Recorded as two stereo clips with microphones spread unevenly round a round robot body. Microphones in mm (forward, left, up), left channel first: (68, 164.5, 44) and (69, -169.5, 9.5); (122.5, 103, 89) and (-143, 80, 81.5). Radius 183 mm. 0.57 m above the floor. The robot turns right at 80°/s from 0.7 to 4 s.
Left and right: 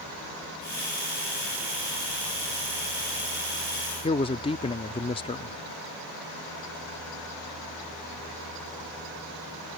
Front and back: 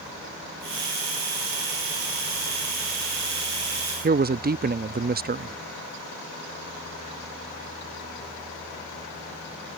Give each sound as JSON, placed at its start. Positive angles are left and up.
{"t": 4.0, "sound": "a man speaking", "azimuth_deg": 165}